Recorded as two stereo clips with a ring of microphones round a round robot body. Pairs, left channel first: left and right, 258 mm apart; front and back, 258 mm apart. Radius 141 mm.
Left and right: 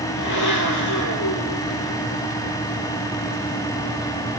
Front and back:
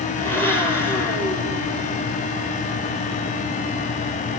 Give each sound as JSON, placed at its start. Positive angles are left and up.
{"t": 0.2, "sound": "a blender", "azimuth_deg": 80, "distance_m": 8.0}